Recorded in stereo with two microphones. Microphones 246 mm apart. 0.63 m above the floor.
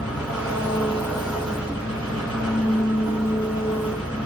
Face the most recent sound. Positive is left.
turn(degrees=5)  # may be behind; listen again after turning